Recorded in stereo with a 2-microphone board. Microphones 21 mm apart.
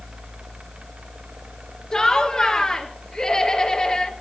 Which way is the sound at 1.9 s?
35° left (ahead or behind).